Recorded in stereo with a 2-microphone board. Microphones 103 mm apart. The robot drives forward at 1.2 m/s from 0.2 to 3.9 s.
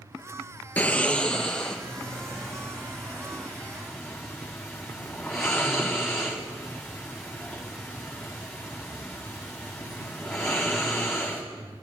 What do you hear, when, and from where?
0.8 s snoring: 15° left (ahead or behind), 0.7 m; by 11.4 s centre (ahead or behind), 4.5 m